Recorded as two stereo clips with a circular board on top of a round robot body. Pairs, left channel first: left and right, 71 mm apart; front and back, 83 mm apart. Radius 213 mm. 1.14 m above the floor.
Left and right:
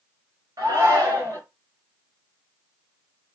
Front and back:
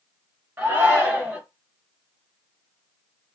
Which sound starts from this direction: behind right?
A shout, at 0.6 s.